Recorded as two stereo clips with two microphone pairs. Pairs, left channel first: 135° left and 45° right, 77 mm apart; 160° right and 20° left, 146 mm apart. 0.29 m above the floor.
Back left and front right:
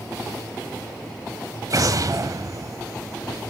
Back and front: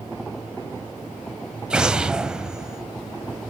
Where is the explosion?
65° right, 0.6 m.